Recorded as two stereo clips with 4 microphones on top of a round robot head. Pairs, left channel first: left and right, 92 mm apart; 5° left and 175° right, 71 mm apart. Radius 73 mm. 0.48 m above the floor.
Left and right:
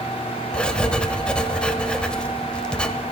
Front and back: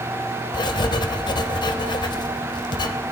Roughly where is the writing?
Ahead.